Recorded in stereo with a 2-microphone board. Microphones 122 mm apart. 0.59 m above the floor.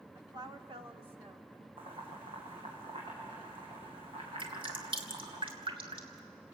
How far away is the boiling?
About 7 m.